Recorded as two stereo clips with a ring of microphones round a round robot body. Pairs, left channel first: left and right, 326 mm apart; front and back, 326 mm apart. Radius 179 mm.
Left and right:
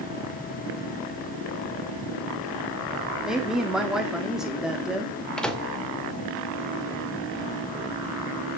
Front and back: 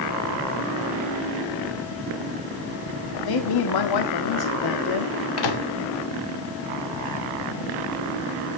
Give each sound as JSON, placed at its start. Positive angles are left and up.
{"t": 3.2, "sound": "a woman speaking", "azimuth_deg": 0, "distance_m": 1.7}
{"t": 5.4, "sound": "a microwave", "azimuth_deg": 0, "distance_m": 2.0}